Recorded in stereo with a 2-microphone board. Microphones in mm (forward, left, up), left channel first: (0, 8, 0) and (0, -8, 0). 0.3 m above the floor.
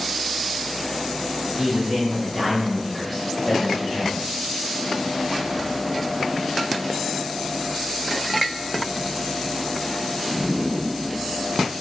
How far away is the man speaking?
About 1.5 m.